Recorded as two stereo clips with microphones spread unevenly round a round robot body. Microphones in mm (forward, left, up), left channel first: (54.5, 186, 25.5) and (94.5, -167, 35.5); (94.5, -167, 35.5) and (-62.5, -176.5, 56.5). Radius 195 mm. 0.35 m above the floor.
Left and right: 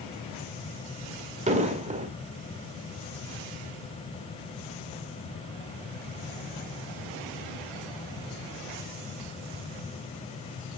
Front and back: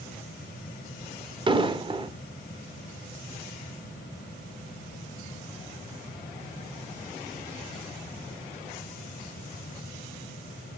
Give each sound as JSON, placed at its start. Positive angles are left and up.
{"t": 1.5, "sound": "an explosion", "azimuth_deg": -140, "distance_m": 1.5}